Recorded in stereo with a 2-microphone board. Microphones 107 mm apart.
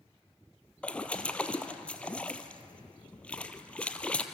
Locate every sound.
0.8 s a splash: 10° left (ahead or behind), 1.3 m